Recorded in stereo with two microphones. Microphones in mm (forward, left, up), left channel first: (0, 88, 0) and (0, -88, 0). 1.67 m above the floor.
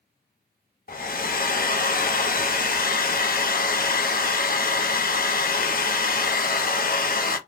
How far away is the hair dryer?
About 0.5 m.